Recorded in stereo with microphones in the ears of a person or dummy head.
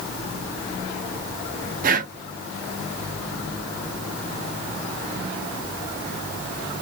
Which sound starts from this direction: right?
Breathing, at 1.8 s.